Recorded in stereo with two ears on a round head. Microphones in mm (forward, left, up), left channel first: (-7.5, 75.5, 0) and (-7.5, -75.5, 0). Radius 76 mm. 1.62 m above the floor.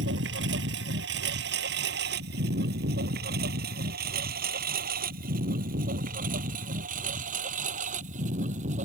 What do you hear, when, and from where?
0.0 s a lawn mower: 75° right (ahead or behind); by 8.9 s 45° right (ahead or behind)